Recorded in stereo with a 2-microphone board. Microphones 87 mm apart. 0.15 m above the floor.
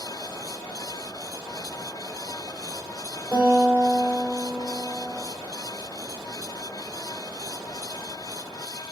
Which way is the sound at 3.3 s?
30° right (ahead or behind).